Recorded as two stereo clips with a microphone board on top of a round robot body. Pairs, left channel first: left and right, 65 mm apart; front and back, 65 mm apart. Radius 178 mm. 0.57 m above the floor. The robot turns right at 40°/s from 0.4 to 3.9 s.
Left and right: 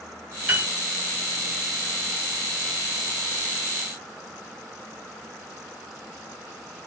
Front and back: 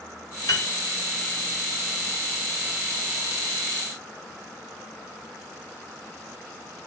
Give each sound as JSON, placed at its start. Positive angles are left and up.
{"t": 0.5, "sound": "a piano", "azimuth_deg": -25, "distance_m": 3.0}